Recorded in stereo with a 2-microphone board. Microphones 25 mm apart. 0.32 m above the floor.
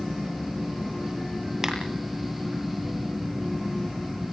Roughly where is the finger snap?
Centre.